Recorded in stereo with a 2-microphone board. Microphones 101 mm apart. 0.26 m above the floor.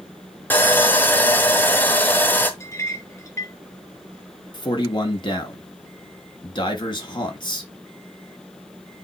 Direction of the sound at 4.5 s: 50° left (ahead or behind).